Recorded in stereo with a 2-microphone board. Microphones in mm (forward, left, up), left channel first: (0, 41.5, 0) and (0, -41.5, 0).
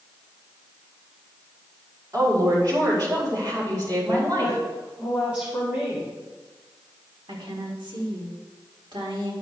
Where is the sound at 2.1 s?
50° right (ahead or behind), 4.5 m.